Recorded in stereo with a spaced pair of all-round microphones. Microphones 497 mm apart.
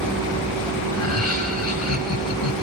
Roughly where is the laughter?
Left.